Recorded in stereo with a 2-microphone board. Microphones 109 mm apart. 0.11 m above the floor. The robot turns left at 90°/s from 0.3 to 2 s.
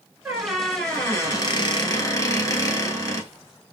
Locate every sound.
0.2 s a squeak: 150° right, 1.0 m; by 3.3 s 60° left, 1.0 m